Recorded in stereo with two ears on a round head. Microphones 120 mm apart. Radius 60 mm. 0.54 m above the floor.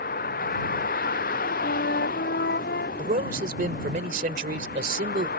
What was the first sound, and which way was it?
A vehicle, 75° left (ahead or behind).